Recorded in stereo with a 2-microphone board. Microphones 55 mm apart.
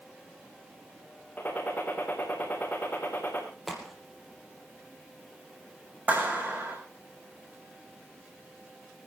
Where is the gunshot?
35° left (ahead or behind), 4 m.